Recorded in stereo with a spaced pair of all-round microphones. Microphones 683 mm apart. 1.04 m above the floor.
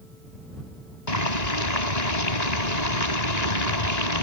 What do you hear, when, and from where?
1.1 s boiling: 75° left (ahead or behind)